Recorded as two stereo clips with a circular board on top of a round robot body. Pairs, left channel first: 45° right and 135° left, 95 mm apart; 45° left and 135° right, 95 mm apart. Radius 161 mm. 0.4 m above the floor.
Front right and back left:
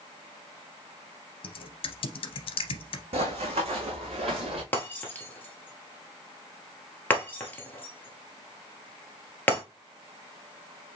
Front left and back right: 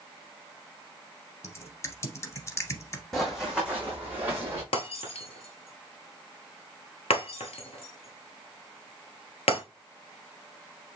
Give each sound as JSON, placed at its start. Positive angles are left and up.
{"t": 1.4, "sound": "typing on a keyboard", "azimuth_deg": -15, "distance_m": 0.6}
{"t": 3.1, "sound": "running footsteps", "azimuth_deg": 130, "distance_m": 1.4}
{"t": 4.7, "sound": "breaking glass", "azimuth_deg": 30, "distance_m": 0.9}